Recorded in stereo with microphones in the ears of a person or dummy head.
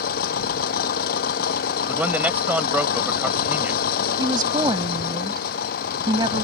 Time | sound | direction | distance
0.0 | an engine running | 55° left (ahead or behind) | ?
1.9 | a man speaking | 5° right (ahead or behind) | ?
4.2 | a woman speaking | 20° right (ahead or behind) | ?